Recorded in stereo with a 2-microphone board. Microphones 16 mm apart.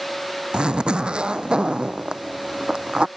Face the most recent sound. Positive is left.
turn(degrees=-80)